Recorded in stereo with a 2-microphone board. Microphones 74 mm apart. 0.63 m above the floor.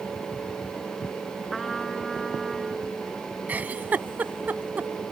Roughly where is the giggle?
Right.